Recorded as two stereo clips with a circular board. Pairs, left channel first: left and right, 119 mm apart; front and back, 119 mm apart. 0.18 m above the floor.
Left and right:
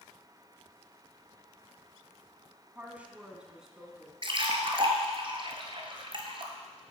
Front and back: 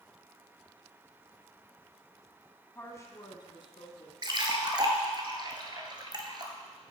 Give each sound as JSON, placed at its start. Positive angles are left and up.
{"t": 2.8, "sound": "a woman speaking", "azimuth_deg": -40, "distance_m": 1.2}
{"t": 4.2, "sound": "a splash", "azimuth_deg": -130, "distance_m": 1.0}